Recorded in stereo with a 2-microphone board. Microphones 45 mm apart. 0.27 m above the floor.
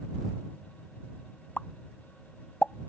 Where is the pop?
35° left (ahead or behind).